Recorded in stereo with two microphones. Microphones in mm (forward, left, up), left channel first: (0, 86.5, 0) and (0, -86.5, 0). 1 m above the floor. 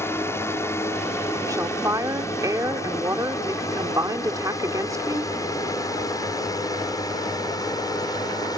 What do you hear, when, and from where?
0.0 s a drone: 15° left (ahead or behind); by 8.6 s 20° left (ahead or behind)
1.5 s a woman speaking: 20° right (ahead or behind)